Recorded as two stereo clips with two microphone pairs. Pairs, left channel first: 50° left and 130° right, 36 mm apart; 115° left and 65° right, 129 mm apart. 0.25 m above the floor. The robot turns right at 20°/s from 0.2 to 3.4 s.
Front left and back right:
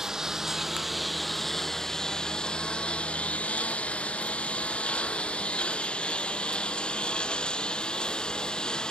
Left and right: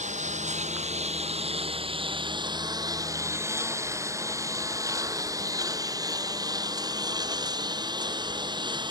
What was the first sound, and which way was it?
A lawn mower, 55° right.